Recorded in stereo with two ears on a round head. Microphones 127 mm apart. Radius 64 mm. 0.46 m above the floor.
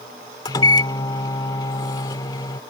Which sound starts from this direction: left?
A microwave, at 0.5 s.